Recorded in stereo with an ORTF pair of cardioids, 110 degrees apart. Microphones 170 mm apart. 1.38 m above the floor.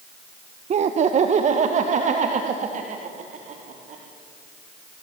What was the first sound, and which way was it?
Laughter, 40° right.